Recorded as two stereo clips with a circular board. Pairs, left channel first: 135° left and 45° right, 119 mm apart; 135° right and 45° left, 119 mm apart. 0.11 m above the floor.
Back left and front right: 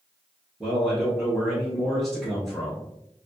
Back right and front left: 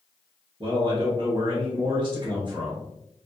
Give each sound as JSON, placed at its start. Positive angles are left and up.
{"t": 0.6, "sound": "a man speaking", "azimuth_deg": 45, "distance_m": 1.8}